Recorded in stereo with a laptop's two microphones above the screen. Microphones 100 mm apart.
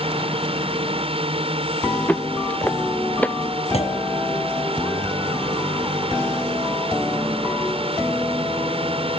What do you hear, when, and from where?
0.0 s a drone: 70° right (ahead or behind)
2.1 s footsteps: 15° left (ahead or behind)
3.7 s a clunk: 80° left